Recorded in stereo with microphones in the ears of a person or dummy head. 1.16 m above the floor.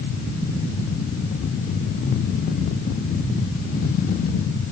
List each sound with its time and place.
Only background noise.